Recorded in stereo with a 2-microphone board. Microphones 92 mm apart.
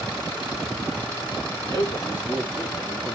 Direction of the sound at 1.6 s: 30° left (ahead or behind).